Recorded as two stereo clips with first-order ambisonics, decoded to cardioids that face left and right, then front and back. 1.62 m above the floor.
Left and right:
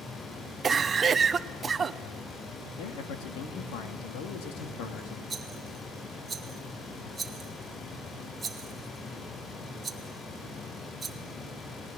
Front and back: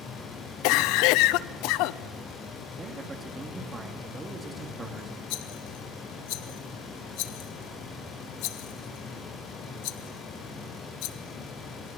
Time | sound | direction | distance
0.6 | a cough | 20° right | 0.7 m
2.8 | a man speaking | 105° left | 2.5 m
5.3 | a rattle | 15° right | 1.3 m